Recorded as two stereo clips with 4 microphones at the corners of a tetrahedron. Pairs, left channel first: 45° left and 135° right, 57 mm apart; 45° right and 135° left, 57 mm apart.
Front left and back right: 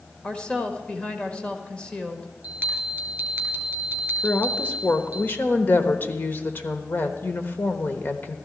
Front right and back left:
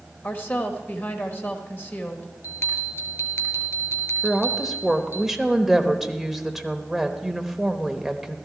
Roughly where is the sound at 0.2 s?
Ahead.